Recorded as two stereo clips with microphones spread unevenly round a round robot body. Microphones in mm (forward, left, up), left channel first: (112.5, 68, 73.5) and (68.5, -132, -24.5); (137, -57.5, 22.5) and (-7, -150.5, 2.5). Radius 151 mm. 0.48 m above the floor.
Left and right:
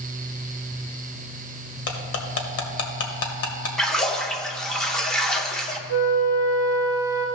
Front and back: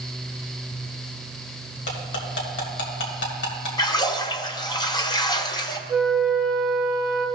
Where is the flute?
125° left, 2 m.